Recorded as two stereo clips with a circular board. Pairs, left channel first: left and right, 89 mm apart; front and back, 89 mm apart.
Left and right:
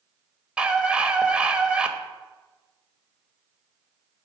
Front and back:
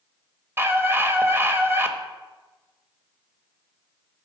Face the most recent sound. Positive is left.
turn(degrees=-155)